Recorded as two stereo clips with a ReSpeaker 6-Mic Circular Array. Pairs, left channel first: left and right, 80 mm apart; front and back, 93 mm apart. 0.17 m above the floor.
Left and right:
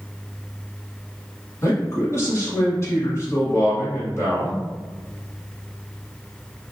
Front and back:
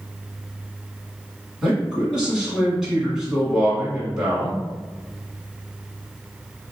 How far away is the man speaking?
About 1.4 m.